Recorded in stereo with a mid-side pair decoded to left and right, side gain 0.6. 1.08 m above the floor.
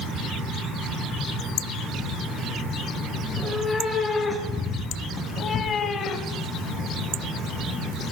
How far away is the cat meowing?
About 5.5 m.